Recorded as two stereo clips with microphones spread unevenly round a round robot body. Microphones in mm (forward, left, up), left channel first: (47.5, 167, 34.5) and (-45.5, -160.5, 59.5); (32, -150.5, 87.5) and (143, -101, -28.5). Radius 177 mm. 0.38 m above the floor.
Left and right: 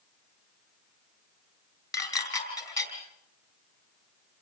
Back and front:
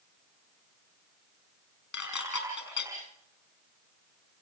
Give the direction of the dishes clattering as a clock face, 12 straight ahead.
7 o'clock.